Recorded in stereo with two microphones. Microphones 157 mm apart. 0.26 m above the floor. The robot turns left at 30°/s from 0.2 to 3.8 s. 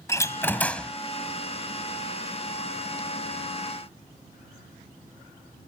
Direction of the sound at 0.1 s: 20° left (ahead or behind).